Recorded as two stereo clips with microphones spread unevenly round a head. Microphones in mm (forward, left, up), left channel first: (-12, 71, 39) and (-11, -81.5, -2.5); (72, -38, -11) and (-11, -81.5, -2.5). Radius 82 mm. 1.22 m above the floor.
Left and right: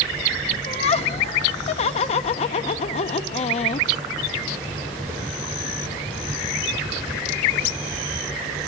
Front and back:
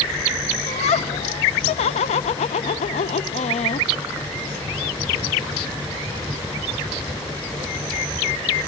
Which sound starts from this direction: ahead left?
Laughter, at 0.7 s.